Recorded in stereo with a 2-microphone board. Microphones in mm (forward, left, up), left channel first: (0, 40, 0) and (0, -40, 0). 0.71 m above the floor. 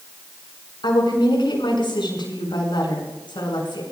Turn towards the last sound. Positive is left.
turn(degrees=75)  # may be behind; listen again after turning